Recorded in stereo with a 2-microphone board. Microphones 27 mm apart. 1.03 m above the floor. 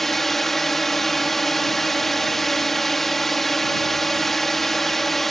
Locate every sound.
0.0 s a drone: 10° left (ahead or behind)